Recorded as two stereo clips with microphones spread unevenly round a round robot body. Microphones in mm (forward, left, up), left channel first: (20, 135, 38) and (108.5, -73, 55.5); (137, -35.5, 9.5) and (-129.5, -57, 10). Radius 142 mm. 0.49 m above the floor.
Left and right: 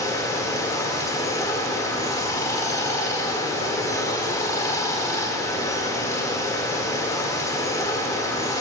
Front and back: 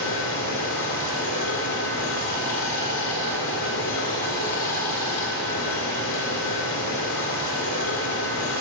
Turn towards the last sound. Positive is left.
turn(degrees=40)